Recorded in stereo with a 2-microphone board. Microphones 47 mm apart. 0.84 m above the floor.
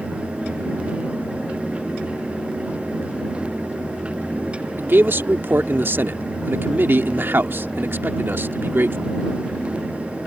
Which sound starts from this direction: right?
A man speaking, at 4.8 s.